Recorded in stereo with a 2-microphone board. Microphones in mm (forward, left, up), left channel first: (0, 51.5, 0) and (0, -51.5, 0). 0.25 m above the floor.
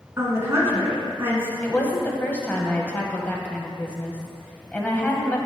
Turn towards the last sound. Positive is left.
turn(degrees=15)  # may be behind; listen again after turning